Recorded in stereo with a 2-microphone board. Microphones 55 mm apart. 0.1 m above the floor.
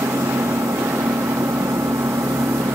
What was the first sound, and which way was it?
An engine running, 65° right (ahead or behind).